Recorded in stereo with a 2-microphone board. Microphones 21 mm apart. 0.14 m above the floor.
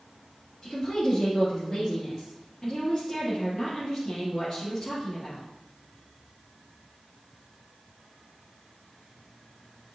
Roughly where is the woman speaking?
Centre.